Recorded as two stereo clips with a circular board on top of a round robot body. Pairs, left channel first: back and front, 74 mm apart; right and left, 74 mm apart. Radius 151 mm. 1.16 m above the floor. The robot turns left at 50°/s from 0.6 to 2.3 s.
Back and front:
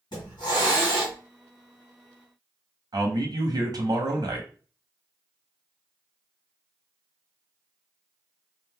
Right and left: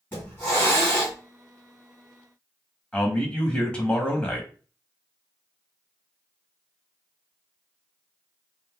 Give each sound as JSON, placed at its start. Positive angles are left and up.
{"t": 0.1, "sound": "a hiss", "azimuth_deg": -155, "distance_m": 1.7}
{"t": 2.9, "sound": "a man speaking", "azimuth_deg": -10, "distance_m": 0.9}